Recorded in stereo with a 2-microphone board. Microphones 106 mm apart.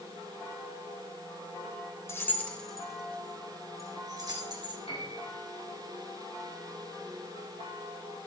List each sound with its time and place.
2.1 s keys jangling: 25° left (ahead or behind), 1.4 m; by 4.8 s 45° right (ahead or behind), 2.5 m
4.9 s a piano: 70° left (ahead or behind), 5.5 m